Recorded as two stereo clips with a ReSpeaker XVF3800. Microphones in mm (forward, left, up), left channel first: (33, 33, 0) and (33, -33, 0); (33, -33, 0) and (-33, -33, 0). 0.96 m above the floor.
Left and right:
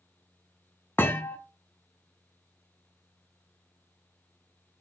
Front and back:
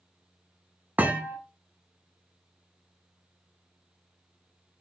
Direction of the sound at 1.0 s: 130° left.